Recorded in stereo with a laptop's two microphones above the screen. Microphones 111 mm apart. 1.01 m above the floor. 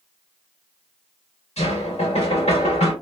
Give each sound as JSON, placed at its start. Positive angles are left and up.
{"t": 1.6, "sound": "knocking", "side_deg": 80, "distance_m": 2.0}